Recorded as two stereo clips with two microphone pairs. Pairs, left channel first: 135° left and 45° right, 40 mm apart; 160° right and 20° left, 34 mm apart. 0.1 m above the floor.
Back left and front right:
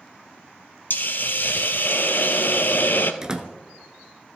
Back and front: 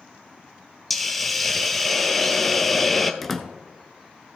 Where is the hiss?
115° left, 0.7 m.